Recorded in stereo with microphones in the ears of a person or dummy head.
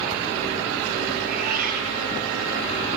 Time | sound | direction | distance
1.2 | a cat meowing | 50° right (ahead or behind) | 8 m